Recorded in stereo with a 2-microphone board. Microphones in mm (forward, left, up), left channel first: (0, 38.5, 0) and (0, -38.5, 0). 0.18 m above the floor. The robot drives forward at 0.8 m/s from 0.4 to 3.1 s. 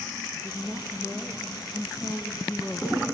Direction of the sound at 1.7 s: 40° left (ahead or behind).